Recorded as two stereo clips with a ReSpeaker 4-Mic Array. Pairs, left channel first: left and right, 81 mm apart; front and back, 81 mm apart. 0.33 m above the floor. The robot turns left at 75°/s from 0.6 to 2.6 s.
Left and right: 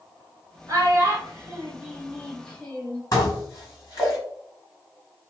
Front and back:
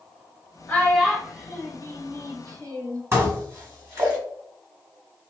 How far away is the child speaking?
About 0.9 m.